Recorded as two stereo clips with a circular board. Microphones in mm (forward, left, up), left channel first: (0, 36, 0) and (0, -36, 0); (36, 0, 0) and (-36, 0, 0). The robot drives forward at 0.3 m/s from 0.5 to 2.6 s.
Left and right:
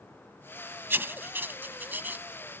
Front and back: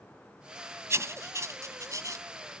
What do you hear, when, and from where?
0.9 s writing: 145° right; by 2.2 s 150° right